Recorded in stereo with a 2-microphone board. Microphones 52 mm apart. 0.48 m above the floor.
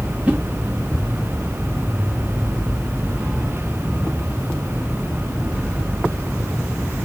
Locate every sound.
0.3 s a whoosh: 25° right (ahead or behind), 1.5 m